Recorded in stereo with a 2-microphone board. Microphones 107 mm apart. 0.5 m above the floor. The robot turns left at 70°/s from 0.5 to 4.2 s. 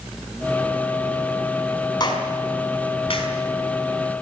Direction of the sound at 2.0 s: 40° left (ahead or behind).